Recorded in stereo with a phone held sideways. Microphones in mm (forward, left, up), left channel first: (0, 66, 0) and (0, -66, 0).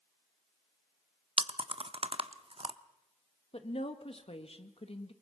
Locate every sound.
1.4 s chewing: 50° right (ahead or behind), 0.7 m
3.5 s a woman speaking: 50° left (ahead or behind), 1.4 m